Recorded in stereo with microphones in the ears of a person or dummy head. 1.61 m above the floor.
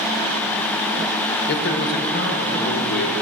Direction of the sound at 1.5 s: 55° left (ahead or behind).